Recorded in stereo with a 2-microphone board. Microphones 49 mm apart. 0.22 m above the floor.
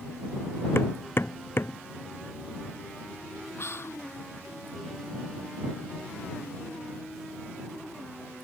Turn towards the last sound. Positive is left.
turn(degrees=60)  # may be behind; listen again after turning